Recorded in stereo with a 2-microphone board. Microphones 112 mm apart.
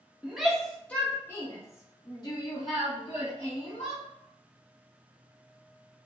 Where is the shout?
5° right (ahead or behind), 1.2 m; by 4.0 s 50° left (ahead or behind), 3 m.